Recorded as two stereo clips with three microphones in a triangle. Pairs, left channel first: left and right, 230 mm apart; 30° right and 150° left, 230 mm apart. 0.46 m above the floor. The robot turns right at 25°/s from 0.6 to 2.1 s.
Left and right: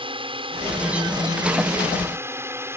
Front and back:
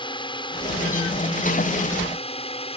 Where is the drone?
65° right; by 2.8 s 25° right.